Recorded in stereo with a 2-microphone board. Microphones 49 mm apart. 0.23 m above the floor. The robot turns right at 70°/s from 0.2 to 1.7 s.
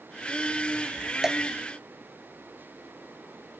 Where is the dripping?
10° right (ahead or behind); by 1.4 s centre (ahead or behind).